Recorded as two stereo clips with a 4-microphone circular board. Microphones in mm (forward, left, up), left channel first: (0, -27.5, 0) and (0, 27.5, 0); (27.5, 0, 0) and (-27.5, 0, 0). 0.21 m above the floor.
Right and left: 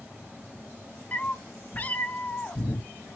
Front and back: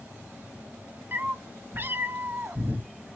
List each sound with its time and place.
1.1 s a cat meowing: 140° right, 0.6 m